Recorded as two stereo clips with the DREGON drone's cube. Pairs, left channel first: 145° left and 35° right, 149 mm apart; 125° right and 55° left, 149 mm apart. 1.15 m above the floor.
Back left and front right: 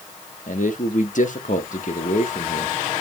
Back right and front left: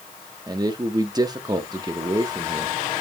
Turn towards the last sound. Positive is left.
turn(degrees=120)